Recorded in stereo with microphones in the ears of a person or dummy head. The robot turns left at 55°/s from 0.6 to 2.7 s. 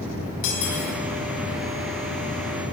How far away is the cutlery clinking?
About 5.5 m.